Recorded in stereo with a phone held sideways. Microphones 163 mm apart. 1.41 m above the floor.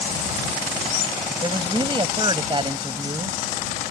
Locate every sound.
1.4 s a woman speaking: 30° right (ahead or behind)